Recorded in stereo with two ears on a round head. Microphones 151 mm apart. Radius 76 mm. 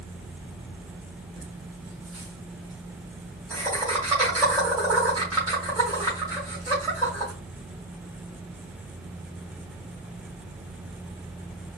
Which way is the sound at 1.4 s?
15° right (ahead or behind).